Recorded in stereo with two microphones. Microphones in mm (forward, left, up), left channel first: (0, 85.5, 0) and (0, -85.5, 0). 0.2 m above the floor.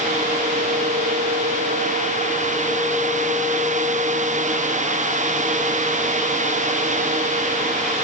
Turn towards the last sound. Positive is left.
No sound to turn to.